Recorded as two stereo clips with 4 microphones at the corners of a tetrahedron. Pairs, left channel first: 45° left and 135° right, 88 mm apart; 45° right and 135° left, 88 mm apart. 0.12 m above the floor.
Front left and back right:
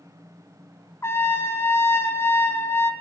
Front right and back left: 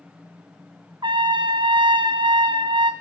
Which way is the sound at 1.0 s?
110° left.